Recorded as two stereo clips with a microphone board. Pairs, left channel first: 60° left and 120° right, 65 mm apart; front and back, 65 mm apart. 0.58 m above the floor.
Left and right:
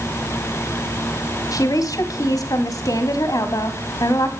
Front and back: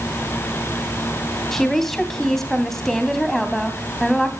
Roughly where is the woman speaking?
Left.